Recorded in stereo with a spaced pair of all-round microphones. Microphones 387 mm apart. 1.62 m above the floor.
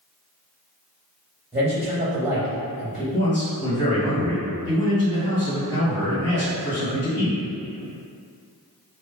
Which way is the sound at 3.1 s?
20° right (ahead or behind).